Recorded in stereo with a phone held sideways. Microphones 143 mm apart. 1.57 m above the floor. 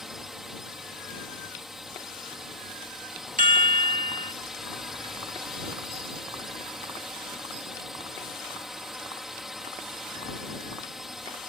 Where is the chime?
65° right (ahead or behind).